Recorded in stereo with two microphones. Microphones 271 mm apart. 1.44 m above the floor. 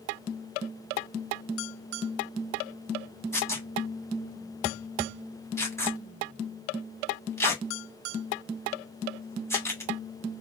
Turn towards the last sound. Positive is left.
turn(degrees=10)  # may be behind; listen again after turning